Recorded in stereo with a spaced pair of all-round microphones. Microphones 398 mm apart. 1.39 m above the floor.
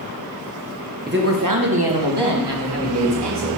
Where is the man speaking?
25° right (ahead or behind), 0.9 m; by 3.5 s 80° right, 2.5 m.